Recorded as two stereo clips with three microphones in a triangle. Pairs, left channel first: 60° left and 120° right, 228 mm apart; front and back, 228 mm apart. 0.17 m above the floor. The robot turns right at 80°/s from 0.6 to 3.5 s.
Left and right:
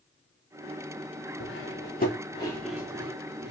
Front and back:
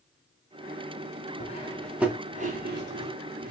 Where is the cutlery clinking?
50° left, 1.3 m; by 3.5 s 145° right, 1.3 m.